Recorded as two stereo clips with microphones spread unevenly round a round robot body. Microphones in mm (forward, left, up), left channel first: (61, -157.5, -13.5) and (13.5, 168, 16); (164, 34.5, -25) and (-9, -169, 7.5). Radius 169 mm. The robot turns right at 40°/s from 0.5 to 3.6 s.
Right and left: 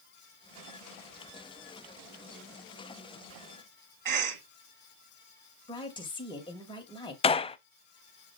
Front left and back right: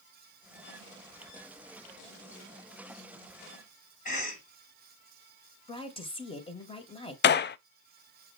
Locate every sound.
4.0 s a cough: 100° left, 1.5 m
5.7 s a woman speaking: 10° right, 2 m
7.2 s a gunshot: 5° right, 0.5 m